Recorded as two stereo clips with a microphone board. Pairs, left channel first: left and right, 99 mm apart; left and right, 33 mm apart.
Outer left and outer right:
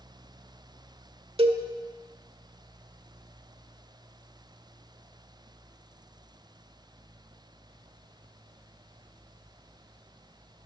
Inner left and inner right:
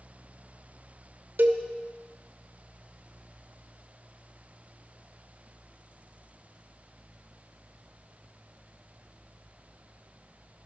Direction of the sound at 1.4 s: 80° right.